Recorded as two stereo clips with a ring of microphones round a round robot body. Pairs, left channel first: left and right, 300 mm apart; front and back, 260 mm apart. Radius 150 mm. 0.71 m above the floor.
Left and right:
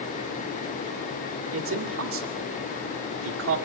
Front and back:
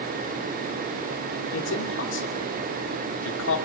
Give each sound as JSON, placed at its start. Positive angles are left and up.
{"t": 1.5, "sound": "a man speaking", "azimuth_deg": -45, "distance_m": 2.0}